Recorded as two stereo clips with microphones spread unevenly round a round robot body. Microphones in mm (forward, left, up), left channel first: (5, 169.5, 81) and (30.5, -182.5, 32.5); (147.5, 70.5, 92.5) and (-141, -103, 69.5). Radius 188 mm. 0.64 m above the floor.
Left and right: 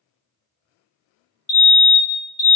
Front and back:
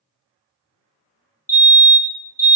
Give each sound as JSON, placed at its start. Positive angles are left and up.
{"t": 1.5, "sound": "a fire alarm", "azimuth_deg": 50, "distance_m": 1.6}